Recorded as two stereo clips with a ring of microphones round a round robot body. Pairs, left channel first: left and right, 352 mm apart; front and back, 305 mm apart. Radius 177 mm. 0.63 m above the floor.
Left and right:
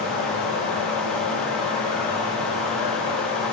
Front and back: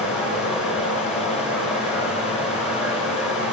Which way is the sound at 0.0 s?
95° left.